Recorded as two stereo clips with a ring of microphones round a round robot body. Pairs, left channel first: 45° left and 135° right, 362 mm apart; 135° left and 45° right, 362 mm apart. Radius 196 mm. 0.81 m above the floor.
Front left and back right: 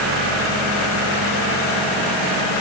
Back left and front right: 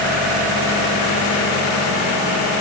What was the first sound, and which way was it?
Only background noise.